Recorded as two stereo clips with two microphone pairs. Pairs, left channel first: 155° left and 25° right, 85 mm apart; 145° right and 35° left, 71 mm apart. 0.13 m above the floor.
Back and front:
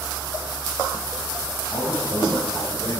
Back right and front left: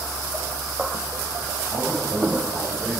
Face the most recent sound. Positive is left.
turn(degrees=120)